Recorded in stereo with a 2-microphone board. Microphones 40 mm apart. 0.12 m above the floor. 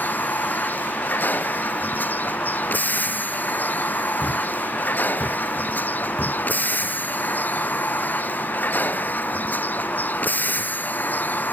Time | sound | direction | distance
0.0 | a vehicle | 50° left (ahead or behind) | ?
4.2 | a thud | 40° left (ahead or behind) | ?